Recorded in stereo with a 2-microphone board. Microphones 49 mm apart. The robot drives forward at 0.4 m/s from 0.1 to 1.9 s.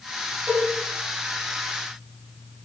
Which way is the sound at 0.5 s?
10° right (ahead or behind).